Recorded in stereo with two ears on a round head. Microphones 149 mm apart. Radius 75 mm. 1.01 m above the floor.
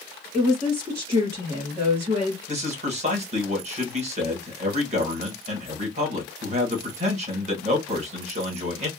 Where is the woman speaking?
25° right (ahead or behind), 1.7 m.